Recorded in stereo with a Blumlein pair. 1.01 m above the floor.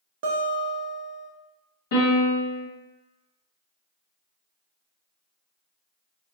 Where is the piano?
60° left, 1.2 m.